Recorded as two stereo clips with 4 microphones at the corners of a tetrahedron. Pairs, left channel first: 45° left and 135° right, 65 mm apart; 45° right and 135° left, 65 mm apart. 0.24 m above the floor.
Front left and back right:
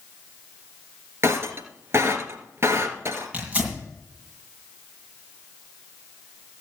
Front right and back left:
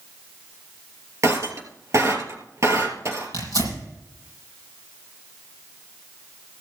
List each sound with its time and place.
1.2 s breaking glass: 175° left, 2.5 m
3.3 s tearing paper: 155° left, 8 m